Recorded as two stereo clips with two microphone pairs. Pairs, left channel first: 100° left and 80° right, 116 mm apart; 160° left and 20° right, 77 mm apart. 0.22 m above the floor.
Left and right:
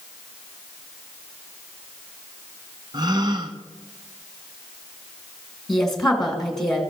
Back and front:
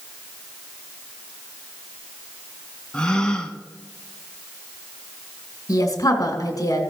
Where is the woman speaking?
175° right, 1.9 m.